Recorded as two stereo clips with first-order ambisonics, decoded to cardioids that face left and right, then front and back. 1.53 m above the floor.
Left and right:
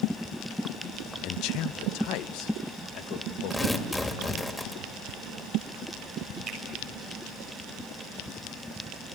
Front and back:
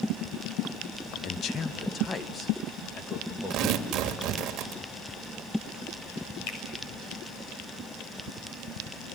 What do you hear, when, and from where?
1.2 s a man speaking: 45° left, 0.6 m; by 4.5 s 80° left, 3 m
3.5 s tearing paper: 170° left, 1.8 m
6.5 s a finger snap: 20° right, 6.5 m